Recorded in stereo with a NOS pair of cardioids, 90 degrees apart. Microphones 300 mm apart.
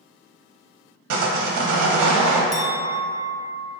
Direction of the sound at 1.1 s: 70° right.